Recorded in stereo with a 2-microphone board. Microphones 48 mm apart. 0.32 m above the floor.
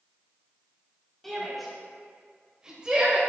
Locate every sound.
1.2 s a shout: 5° left (ahead or behind), 2 m; by 3.2 s 25° right (ahead or behind), 1.5 m